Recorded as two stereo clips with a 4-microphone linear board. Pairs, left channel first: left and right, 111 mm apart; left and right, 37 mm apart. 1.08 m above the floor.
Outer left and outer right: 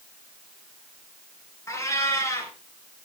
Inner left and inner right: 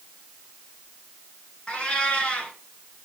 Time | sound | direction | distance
1.7 | a cat meowing | 25° left (ahead or behind) | 3 m